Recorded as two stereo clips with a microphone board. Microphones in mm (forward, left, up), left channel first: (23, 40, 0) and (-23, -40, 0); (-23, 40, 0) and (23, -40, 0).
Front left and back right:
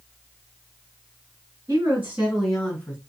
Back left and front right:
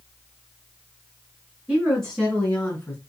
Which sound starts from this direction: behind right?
A woman speaking, at 1.7 s.